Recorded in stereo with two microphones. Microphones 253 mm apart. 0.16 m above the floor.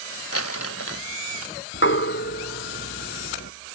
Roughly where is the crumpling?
Left.